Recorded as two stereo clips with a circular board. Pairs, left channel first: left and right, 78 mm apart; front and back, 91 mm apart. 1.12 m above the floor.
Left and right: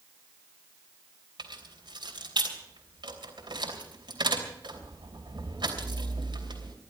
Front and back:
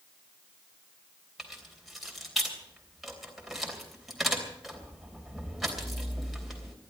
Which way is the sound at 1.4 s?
90° right.